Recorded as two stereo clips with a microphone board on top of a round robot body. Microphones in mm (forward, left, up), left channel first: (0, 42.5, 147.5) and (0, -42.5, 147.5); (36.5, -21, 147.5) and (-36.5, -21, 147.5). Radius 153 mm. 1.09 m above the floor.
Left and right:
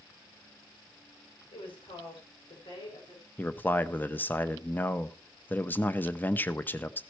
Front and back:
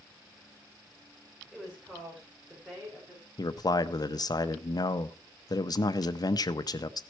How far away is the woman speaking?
About 5.5 m.